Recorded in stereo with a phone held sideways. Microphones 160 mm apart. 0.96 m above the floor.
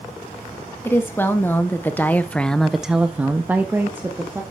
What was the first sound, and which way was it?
A woman speaking, 15° left (ahead or behind).